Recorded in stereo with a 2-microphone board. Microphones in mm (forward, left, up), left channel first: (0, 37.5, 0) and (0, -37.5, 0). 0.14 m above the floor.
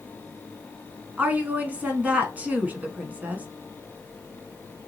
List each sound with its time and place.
1.2 s a woman speaking: 20° right (ahead or behind), 1.0 m